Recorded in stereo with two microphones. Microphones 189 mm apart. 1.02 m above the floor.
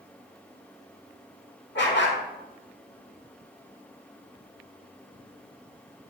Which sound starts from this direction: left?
A dog barking, at 1.8 s.